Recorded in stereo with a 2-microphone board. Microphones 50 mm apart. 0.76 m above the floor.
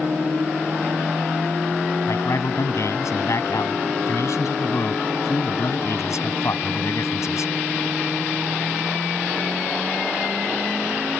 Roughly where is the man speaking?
Left.